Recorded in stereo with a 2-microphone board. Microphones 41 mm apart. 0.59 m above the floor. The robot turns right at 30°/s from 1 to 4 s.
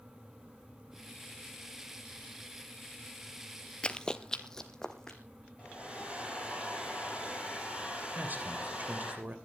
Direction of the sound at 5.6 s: 25° right (ahead or behind).